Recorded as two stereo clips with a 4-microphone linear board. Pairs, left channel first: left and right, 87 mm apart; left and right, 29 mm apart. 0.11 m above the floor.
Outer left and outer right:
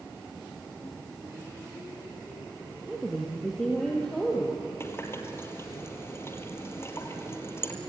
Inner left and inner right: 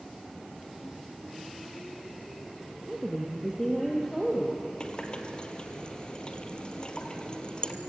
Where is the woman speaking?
5° right (ahead or behind), 3 m; by 4.7 s 10° left (ahead or behind), 4 m.